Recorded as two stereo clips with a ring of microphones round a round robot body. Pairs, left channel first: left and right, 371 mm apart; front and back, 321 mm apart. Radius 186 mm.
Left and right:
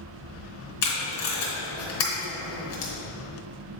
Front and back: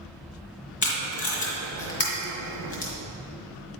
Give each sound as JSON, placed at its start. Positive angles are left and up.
{"t": 0.8, "sound": "tape being pulled", "azimuth_deg": 45, "distance_m": 2.5}